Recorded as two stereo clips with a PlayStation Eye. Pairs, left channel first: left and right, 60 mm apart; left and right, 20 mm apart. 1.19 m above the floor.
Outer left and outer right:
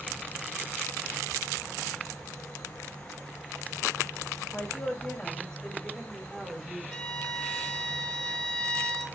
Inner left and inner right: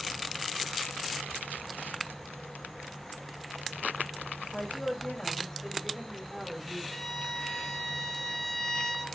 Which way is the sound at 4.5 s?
30° left (ahead or behind).